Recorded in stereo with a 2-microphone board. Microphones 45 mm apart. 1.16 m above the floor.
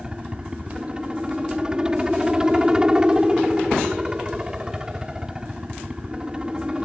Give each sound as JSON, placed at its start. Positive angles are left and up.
{"t": 0.0, "sound": "a helicopter", "side_deg": -15}